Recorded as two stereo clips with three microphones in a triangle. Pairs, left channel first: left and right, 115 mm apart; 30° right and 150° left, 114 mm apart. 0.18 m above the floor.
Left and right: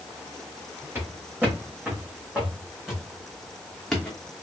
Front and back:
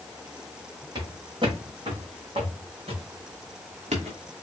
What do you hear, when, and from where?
0.9 s footsteps: 165° right, 4.5 m; by 4.2 s 170° left, 2.5 m